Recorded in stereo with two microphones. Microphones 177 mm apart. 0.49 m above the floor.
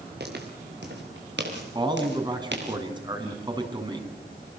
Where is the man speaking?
25° right (ahead or behind), 4.5 m.